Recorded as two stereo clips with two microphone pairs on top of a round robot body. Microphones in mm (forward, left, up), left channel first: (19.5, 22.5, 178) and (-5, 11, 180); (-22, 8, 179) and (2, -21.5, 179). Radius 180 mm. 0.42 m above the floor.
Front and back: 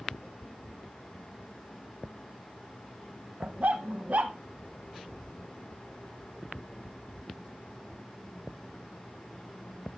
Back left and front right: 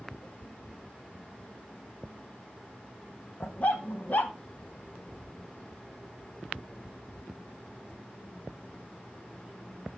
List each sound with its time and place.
3.4 s a dog barking: 175° left, 0.9 m